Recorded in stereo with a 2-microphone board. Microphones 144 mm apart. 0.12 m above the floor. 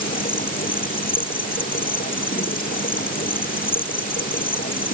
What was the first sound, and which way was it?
An insect, 80° left.